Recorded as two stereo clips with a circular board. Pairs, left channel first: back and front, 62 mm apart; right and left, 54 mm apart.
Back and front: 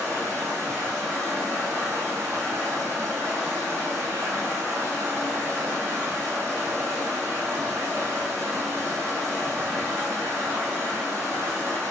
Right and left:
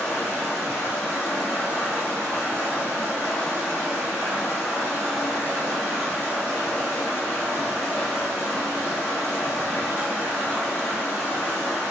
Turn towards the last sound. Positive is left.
turn(degrees=-35)